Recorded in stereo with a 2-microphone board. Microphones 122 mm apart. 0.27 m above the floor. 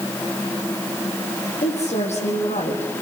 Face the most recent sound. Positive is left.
turn(degrees=65)  # may be behind; listen again after turning